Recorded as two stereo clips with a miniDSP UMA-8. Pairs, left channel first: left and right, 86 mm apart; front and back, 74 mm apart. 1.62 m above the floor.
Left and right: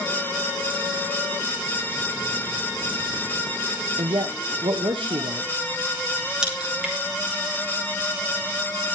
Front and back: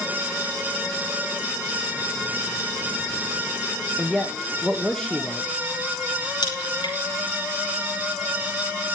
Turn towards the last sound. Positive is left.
turn(degrees=-10)